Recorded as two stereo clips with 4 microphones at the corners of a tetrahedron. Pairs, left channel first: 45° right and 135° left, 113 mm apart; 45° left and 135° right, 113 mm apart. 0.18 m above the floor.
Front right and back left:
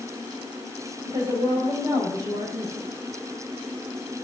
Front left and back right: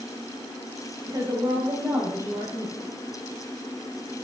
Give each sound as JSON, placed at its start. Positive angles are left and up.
{"t": 1.1, "sound": "a woman speaking", "azimuth_deg": 175, "distance_m": 5.5}